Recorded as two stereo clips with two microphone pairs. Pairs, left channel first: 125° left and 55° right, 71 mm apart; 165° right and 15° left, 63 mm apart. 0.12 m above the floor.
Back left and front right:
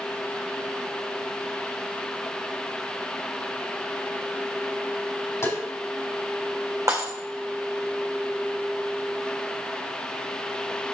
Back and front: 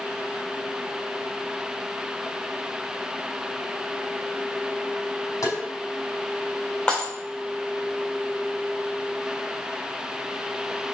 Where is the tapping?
175° left, 4 m.